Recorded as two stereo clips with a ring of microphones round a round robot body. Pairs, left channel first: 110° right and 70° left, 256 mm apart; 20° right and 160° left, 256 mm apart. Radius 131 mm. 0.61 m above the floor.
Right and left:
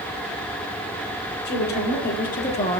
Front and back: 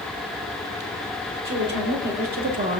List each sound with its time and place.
1.4 s a woman speaking: 160° right, 2.0 m; by 2.8 s 170° right, 0.9 m